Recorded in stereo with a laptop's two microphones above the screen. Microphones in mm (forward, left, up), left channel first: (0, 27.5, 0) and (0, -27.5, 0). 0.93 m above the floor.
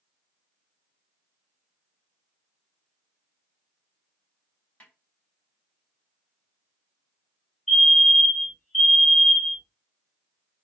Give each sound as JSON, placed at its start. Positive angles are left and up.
{"t": 4.8, "sound": "a snare drum", "side_deg": 25, "distance_m": 1.7}
{"t": 7.7, "sound": "a fire alarm", "side_deg": 5, "distance_m": 1.9}